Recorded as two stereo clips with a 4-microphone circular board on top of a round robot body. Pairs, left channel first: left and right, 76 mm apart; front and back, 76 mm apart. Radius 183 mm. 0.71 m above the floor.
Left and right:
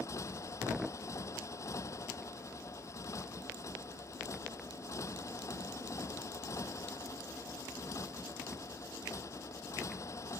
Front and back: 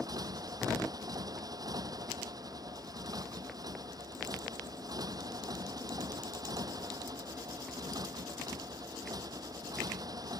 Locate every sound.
0.0 s a motorcycle: 140° left